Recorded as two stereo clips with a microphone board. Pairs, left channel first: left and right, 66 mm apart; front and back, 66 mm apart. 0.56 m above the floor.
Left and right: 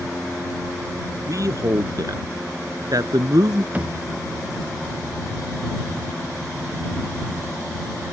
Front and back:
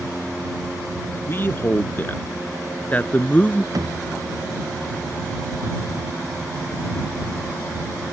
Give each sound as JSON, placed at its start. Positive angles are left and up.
{"t": 1.3, "sound": "a man speaking", "azimuth_deg": -55}
{"t": 3.7, "sound": "a thud", "azimuth_deg": -160}